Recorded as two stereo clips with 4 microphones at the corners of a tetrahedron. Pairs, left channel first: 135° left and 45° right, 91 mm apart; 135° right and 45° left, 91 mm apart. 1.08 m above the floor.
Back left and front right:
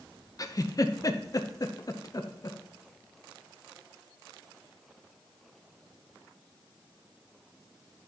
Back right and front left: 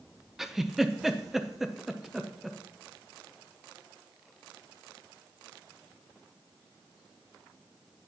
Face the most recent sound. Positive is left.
turn(degrees=130)